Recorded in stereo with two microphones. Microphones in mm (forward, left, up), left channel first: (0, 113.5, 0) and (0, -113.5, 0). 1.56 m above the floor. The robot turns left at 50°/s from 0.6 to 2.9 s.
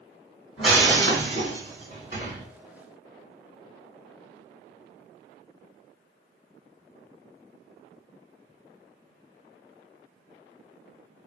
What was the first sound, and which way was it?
Breaking glass, 150° left.